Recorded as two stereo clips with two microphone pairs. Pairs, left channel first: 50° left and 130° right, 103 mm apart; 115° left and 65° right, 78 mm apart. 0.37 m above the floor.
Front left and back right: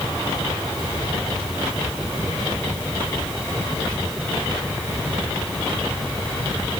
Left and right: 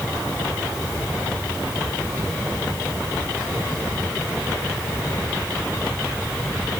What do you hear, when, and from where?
Only background noise.